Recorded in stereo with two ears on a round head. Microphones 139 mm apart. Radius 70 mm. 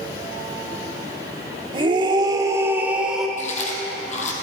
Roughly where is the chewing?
Left.